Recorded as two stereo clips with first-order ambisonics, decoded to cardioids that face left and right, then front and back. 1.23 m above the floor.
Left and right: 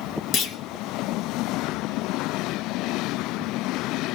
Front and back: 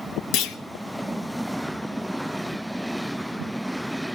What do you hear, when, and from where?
0.3 s a clunk: 40° left, 0.8 m